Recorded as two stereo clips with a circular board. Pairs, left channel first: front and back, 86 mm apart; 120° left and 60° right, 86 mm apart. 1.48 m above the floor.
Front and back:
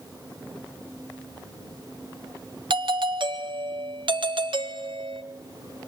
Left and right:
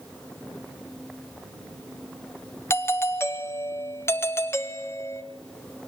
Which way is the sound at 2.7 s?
Straight behind.